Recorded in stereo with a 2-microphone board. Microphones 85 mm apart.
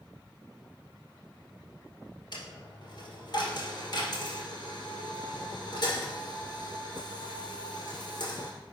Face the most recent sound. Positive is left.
turn(degrees=60)  # may be behind; listen again after turning